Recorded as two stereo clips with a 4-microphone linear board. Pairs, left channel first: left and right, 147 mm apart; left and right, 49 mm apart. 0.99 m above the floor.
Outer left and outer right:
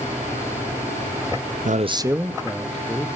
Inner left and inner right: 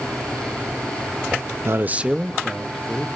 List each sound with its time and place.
1.6 s a man speaking: 60° right (ahead or behind), 0.7 m; by 3.1 s 10° left (ahead or behind), 2 m